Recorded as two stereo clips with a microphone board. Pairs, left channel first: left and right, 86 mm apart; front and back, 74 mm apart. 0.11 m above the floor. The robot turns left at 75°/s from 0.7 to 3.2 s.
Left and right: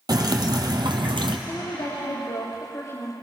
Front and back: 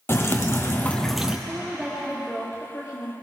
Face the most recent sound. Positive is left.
turn(degrees=10)